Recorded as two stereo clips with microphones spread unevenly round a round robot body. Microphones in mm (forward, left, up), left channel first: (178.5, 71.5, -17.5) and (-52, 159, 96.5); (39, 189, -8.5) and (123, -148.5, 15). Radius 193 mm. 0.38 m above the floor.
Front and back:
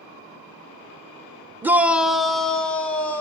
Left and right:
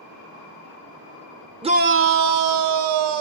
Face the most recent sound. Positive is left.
turn(degrees=-95)